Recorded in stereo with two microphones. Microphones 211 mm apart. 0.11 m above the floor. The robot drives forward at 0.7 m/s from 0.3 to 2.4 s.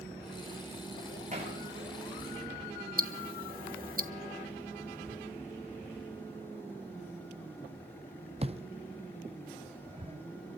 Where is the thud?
30° right (ahead or behind), 0.6 m.